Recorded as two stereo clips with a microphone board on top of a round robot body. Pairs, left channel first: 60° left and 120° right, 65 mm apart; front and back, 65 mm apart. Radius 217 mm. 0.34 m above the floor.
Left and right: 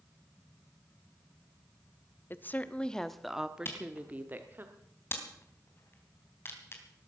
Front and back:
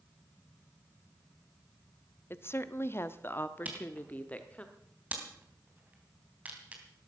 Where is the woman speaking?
25° left, 1.2 m; by 4.7 s 70° right, 1.8 m.